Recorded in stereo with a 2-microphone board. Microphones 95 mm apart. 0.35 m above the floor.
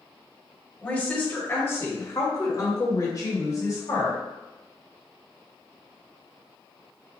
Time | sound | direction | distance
0.8 | a woman speaking | 15° left (ahead or behind) | 1.4 m